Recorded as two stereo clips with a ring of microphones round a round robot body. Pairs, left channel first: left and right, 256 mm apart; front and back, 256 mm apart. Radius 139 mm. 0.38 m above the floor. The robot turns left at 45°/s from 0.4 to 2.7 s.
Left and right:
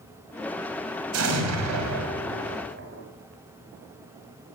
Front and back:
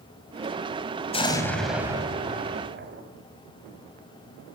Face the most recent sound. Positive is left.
turn(degrees=-135)